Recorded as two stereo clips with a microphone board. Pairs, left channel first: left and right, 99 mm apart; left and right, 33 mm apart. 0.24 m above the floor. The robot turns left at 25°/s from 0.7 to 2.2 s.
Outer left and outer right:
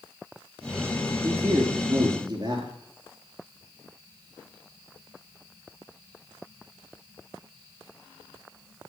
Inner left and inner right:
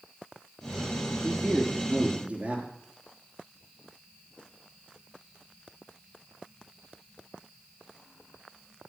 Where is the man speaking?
30° right (ahead or behind), 3.5 m; by 2.7 s 50° right (ahead or behind), 3.5 m.